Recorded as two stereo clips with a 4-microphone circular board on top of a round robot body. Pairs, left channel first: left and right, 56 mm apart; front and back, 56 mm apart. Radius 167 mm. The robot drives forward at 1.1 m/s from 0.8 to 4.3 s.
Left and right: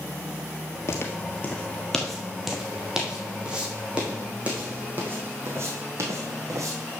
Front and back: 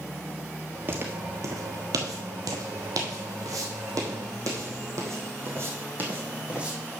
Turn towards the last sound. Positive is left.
turn(degrees=-105)